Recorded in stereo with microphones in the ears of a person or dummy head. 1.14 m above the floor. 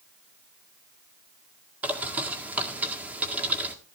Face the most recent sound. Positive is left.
turn(degrees=-10)  # may be behind; listen again after turning